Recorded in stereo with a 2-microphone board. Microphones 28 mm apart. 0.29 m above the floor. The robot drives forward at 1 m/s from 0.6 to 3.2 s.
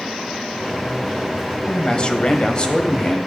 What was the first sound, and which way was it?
A man speaking, 30° left (ahead or behind).